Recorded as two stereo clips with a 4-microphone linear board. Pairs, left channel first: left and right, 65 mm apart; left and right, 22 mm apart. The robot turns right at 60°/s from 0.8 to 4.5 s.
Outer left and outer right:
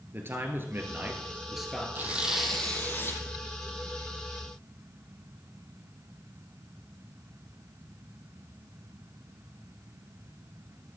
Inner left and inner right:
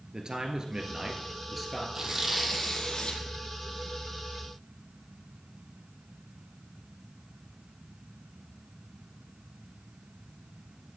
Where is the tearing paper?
30° right, 1.2 m; by 3.2 s 45° left, 1.2 m.